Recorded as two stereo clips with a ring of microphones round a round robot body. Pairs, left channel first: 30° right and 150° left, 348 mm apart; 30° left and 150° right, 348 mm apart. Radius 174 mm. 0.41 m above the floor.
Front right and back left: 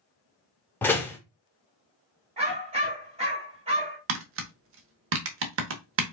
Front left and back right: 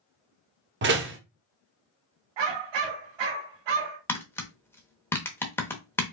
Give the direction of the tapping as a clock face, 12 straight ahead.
8 o'clock.